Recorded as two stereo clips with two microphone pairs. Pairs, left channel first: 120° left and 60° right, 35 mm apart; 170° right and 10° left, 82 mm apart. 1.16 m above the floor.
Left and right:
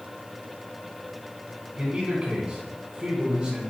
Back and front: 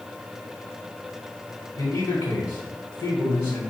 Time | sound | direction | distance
1.8 | a man speaking | 135° right | 1.3 m